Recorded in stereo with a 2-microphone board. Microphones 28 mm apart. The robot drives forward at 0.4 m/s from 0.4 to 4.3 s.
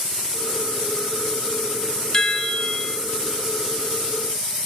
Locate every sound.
2.1 s a chime: 20° left (ahead or behind), 1.2 m; by 3.0 s 25° left (ahead or behind), 0.9 m